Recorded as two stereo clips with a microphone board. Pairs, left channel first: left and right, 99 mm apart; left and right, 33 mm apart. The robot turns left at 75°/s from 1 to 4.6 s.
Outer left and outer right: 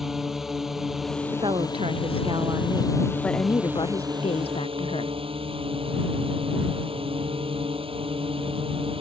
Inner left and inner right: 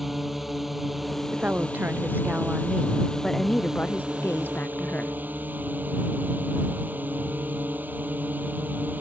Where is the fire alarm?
No fire alarm in this recording.